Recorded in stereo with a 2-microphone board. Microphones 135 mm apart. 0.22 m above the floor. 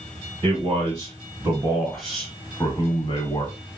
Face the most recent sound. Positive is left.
turn(degrees=40)  # may be behind; listen again after turning